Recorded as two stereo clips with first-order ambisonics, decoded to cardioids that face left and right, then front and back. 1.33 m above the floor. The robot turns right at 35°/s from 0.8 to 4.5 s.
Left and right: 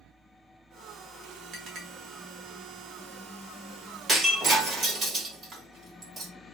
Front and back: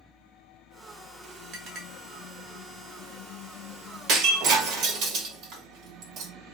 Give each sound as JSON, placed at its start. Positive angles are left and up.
{"t": 1.5, "sound": "a clink", "azimuth_deg": -140, "distance_m": 1.0}
{"t": 4.1, "sound": "breaking glass", "azimuth_deg": -160, "distance_m": 1.2}